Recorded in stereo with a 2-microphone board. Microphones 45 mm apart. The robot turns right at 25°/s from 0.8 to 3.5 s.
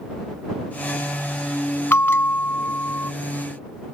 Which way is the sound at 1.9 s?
60° left (ahead or behind).